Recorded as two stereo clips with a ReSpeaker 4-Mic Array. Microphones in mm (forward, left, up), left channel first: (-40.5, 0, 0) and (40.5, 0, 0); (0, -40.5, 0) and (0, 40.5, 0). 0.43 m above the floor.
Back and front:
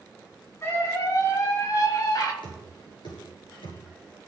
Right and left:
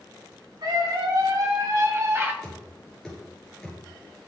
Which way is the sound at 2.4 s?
175° right.